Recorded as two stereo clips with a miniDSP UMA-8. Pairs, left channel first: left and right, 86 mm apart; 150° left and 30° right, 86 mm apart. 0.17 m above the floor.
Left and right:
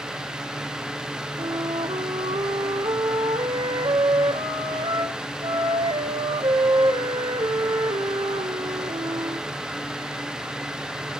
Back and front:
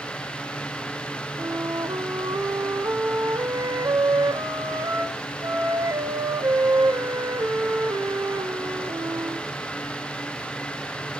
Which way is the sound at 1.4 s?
75° right.